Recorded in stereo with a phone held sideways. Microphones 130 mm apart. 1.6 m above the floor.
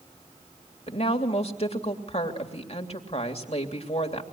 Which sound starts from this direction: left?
A woman speaking, at 0.9 s.